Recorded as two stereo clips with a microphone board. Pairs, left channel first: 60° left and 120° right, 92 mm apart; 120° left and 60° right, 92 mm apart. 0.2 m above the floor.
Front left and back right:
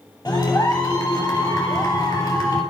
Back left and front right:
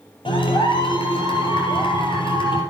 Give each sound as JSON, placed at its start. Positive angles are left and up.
{"t": 0.2, "sound": "a clap", "azimuth_deg": 110, "distance_m": 3.5}